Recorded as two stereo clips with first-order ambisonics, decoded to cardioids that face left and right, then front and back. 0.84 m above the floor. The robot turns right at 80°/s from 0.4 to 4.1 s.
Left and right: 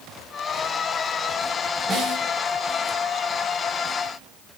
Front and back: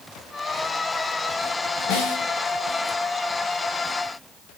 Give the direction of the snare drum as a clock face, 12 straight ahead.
1 o'clock.